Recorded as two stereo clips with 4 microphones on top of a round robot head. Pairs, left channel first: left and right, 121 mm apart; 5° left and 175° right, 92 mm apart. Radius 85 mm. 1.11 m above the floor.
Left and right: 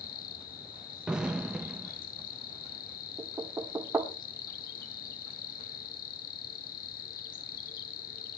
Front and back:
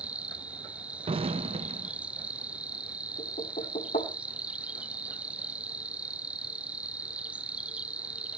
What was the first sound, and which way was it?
An insect, 110° left.